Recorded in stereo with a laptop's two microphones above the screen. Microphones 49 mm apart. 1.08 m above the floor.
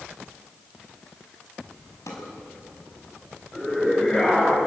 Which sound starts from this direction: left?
A drawer, at 2.1 s.